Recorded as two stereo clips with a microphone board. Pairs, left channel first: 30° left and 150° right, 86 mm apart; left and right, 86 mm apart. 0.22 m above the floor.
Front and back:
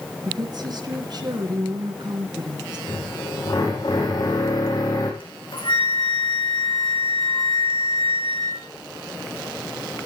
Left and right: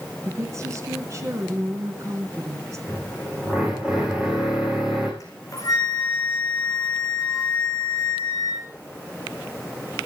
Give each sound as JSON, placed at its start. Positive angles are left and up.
{"t": 0.2, "sound": "a woman speaking", "azimuth_deg": -135, "distance_m": 3.0}
{"t": 2.9, "sound": "a drill", "azimuth_deg": -10, "distance_m": 9.0}
{"t": 5.2, "sound": "a flute", "azimuth_deg": 45, "distance_m": 5.5}